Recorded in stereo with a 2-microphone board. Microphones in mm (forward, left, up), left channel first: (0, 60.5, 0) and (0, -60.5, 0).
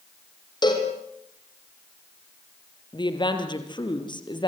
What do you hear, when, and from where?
0.6 s a cowbell: 35° left (ahead or behind), 4.5 m
2.9 s a woman speaking: 40° left (ahead or behind), 4 m